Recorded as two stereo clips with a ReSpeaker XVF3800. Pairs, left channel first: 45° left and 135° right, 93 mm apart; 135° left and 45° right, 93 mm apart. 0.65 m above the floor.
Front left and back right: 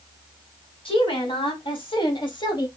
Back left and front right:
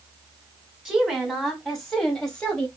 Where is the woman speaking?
40° left, 2.5 m; by 2.7 s 60° left, 1.3 m.